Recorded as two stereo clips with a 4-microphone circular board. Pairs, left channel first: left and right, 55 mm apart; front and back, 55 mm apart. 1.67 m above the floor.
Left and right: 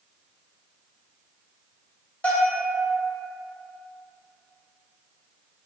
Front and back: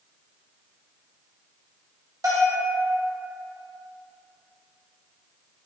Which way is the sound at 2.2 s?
155° left.